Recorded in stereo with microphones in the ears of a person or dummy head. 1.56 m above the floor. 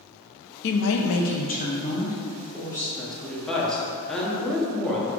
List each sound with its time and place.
0.6 s a woman speaking: 50° left (ahead or behind), 0.7 m; by 2.9 s 20° left (ahead or behind), 2 m
3.0 s a woman speaking: centre (ahead or behind), 1.0 m